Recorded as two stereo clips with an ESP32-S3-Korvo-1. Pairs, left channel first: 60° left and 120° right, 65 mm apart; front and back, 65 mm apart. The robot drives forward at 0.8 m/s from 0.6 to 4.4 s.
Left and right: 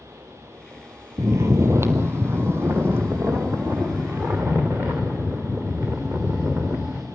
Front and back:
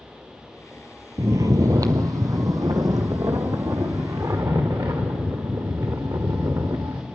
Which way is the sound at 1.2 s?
150° right.